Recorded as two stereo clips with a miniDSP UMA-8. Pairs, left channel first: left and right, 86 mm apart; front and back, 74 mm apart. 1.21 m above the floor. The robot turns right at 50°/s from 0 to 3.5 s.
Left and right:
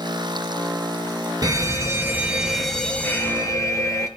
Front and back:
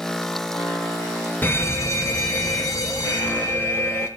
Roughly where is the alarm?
Ahead right.